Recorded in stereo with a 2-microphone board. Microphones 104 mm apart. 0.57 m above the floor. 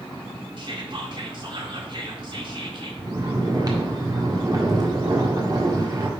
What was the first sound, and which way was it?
Whispering, 50° right (ahead or behind).